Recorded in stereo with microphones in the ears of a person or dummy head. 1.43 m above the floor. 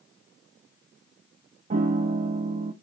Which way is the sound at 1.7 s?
40° right (ahead or behind).